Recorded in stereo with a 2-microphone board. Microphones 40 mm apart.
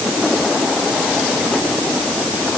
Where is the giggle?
No giggle in this recording.